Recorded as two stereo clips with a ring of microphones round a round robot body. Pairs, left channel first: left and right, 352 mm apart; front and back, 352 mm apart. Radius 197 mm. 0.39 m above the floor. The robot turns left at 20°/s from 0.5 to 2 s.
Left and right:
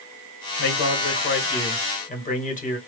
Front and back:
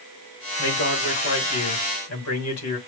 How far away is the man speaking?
About 2 m.